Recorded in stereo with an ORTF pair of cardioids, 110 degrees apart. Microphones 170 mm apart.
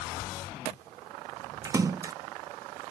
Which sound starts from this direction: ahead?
A splash, at 1.6 s.